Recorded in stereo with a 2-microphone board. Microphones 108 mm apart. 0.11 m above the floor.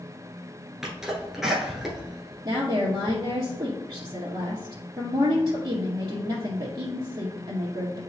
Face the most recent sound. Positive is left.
turn(degrees=-45)  # may be behind; listen again after turning